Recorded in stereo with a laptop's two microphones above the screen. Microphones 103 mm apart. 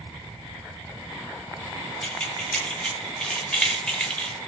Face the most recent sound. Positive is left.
turn(degrees=10)  # may be behind; listen again after turning